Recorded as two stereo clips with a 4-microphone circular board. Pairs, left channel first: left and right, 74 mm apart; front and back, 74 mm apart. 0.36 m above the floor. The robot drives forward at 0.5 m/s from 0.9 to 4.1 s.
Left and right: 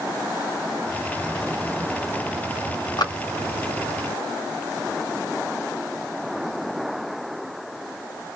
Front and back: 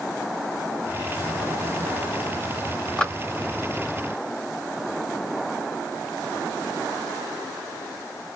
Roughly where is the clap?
Left.